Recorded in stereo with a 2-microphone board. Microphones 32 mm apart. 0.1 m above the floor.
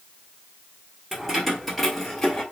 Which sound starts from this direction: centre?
Keys jangling, at 1.1 s.